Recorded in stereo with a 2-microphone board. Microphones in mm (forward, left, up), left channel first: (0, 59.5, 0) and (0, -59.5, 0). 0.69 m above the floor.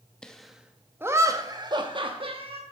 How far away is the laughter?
About 0.9 m.